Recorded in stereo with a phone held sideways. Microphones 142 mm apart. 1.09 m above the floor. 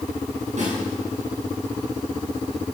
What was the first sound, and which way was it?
A snare drum, 60° right (ahead or behind).